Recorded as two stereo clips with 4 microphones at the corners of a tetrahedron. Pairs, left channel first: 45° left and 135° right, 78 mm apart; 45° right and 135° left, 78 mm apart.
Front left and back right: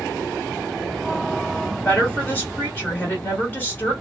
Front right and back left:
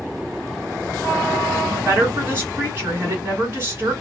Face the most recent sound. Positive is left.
turn(degrees=90)